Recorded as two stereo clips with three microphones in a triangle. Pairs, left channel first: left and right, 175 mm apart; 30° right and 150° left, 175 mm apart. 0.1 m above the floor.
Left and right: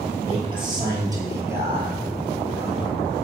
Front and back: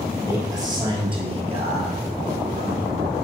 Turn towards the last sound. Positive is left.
turn(degrees=180)